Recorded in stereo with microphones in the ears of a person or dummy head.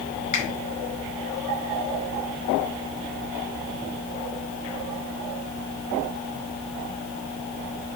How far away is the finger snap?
About 5.5 m.